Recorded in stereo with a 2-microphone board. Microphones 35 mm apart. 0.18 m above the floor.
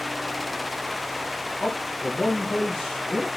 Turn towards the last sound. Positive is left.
turn(degrees=10)  # may be behind; listen again after turning